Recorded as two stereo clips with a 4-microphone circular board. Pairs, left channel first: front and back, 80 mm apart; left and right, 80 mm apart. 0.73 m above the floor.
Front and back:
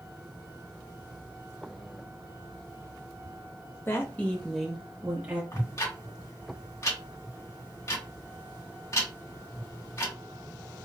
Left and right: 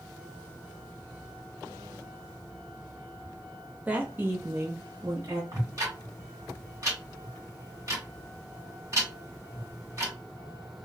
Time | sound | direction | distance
3.9 | a woman speaking | 30° right | 0.7 m
5.5 | ticking | 45° right | 1.9 m